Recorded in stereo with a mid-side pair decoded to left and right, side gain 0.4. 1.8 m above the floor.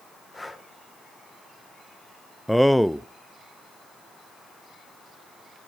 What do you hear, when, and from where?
0.3 s breathing: 20° left, 2.5 m
2.5 s a man speaking: straight ahead, 0.7 m